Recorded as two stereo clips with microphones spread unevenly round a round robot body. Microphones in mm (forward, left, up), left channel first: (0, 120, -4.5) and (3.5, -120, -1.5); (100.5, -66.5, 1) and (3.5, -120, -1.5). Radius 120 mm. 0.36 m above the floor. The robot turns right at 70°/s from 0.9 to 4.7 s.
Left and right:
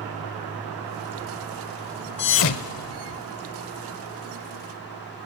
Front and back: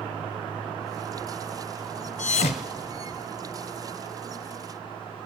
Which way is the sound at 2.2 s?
45° left.